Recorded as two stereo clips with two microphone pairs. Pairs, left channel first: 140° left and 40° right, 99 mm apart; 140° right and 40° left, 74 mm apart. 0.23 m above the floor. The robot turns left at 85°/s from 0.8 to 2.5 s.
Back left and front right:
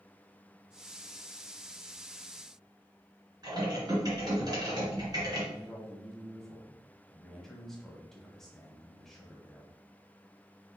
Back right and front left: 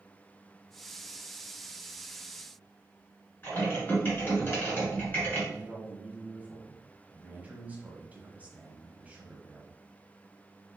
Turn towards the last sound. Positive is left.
turn(degrees=60)